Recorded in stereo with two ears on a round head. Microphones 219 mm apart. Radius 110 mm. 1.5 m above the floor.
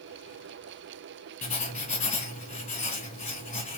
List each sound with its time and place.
1.4 s writing: 30° left (ahead or behind), 1.9 m